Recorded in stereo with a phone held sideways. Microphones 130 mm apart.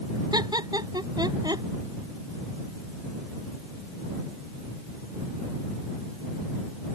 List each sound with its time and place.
0.3 s laughter: 30° right (ahead or behind)